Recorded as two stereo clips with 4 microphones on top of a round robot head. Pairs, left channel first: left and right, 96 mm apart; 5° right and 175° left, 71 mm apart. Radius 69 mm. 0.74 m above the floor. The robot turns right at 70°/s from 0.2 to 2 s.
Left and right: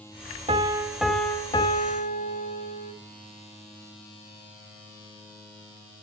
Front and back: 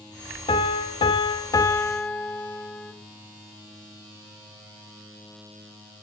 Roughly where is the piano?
Ahead right.